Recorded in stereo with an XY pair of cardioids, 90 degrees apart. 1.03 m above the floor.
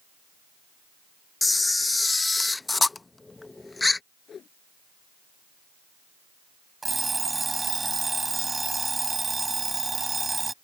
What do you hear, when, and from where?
1.4 s a camera shutter: 20° left
4.3 s a whoosh: 55° left
6.8 s an alarm clock: 25° right